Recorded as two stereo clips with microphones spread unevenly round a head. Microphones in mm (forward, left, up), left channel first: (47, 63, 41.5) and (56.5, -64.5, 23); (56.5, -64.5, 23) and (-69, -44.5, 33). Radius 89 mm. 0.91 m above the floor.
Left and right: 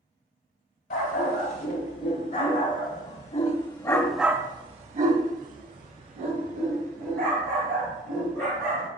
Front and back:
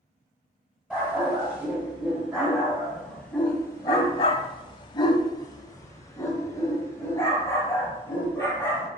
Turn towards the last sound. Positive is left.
turn(degrees=-80)